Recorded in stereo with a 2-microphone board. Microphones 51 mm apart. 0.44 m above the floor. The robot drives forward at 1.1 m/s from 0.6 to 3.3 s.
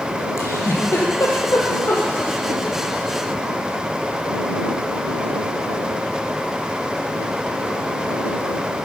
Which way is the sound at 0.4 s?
80° left.